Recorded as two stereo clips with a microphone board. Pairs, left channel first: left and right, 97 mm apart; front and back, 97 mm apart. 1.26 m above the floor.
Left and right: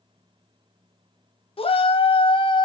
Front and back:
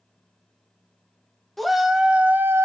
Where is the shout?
90° left, 1.7 m; by 2.6 s 120° left, 1.3 m.